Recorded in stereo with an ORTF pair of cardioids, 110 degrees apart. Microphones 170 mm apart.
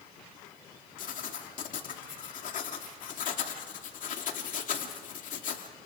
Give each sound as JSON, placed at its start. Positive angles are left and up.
{"t": 1.0, "sound": "writing", "azimuth_deg": 50, "distance_m": 2.5}